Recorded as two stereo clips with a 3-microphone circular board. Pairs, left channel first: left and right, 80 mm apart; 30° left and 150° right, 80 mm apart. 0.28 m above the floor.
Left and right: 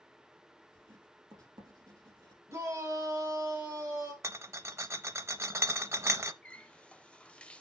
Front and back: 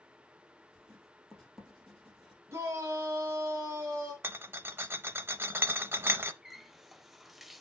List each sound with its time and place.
0.7 s writing: 60° right, 3 m
2.5 s a shout: 115° right, 1.5 m
4.2 s a rattle: 110° right, 0.6 m
6.4 s a running tap: 125° left, 0.6 m